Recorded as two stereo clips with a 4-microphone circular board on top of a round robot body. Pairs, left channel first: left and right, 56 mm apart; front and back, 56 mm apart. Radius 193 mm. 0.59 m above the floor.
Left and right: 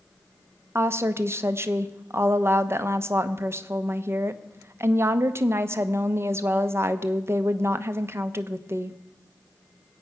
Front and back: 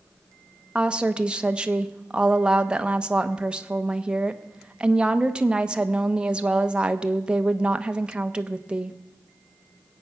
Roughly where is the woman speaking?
Right.